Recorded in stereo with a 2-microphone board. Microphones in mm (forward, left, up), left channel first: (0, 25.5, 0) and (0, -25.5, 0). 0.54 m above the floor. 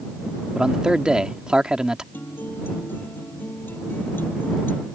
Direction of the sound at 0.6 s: 15° right (ahead or behind).